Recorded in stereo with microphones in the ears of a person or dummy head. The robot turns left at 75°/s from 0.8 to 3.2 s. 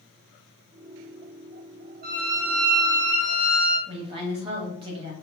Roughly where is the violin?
Behind right.